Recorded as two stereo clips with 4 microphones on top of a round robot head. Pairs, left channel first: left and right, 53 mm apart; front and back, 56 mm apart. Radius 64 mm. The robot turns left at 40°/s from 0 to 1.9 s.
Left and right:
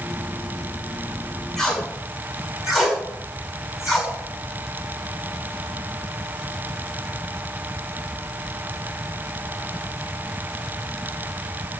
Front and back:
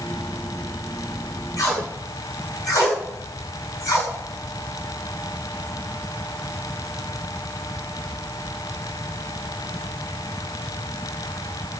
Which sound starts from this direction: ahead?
Tape being pulled, at 1.6 s.